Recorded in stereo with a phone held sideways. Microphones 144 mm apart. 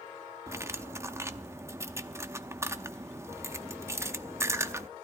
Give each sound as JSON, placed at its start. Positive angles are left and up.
{"t": 0.5, "sound": "cutlery clinking", "side_deg": -20, "distance_m": 0.7}